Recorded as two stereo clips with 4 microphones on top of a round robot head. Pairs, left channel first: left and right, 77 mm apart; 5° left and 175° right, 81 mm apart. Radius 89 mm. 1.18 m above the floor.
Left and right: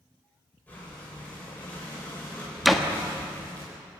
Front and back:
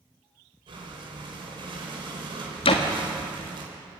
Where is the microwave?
No microwave in this recording.